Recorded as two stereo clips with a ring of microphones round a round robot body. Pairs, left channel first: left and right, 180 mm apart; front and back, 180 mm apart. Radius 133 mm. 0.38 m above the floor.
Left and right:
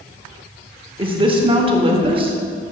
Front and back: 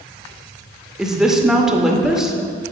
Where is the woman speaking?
95° right, 0.9 m.